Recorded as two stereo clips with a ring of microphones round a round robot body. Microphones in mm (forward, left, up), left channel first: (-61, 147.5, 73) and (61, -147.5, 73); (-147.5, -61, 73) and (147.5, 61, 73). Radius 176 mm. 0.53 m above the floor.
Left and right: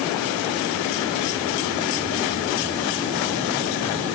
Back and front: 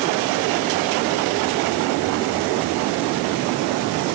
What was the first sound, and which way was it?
Only background noise.